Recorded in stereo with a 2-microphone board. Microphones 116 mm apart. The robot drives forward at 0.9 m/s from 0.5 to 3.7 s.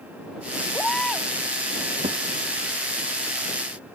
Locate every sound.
0.7 s a baby crying: 5° left (ahead or behind)
2.0 s a thud: 80° right